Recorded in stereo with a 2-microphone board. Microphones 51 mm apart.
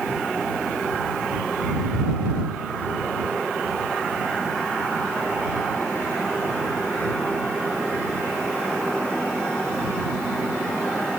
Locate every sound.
Only background noise.